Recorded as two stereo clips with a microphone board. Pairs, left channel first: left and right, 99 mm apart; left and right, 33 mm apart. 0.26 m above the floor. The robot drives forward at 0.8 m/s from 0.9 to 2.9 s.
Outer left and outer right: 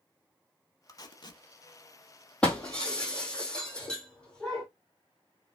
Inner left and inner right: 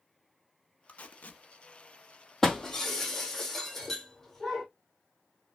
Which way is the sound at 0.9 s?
40° left (ahead or behind).